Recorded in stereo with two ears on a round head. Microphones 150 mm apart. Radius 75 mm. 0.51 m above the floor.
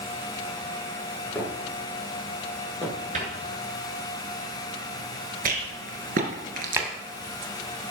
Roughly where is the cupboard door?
Right.